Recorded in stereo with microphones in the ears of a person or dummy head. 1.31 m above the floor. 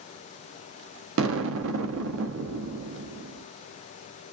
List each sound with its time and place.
1.2 s an explosion: 80° right, 0.6 m